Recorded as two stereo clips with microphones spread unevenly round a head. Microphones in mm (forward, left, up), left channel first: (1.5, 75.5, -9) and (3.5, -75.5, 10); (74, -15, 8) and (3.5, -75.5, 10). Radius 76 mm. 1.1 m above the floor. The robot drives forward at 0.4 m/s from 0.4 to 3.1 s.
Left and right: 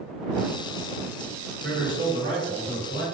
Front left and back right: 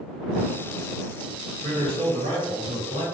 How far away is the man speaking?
About 1.1 m.